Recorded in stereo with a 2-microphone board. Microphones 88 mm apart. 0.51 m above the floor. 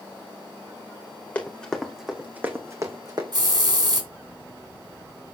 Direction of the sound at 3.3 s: 50° right (ahead or behind).